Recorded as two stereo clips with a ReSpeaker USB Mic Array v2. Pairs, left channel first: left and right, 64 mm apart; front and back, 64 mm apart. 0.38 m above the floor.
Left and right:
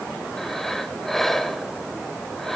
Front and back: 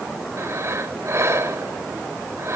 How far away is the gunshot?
No gunshot in this recording.